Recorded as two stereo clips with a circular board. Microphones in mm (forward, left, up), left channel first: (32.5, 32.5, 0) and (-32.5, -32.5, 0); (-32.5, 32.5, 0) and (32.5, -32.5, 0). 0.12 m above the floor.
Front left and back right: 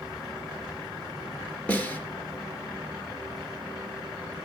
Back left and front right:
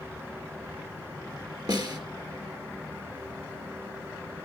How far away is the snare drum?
About 2.5 m.